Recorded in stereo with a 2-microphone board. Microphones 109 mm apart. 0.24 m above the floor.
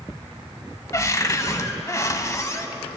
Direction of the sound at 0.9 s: 30° left (ahead or behind).